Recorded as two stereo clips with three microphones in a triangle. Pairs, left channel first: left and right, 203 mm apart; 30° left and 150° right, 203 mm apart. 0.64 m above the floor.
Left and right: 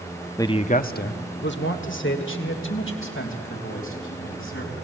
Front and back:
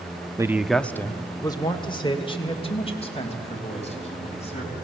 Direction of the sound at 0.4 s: 150° left.